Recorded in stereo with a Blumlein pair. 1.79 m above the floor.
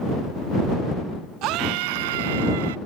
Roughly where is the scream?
Ahead right.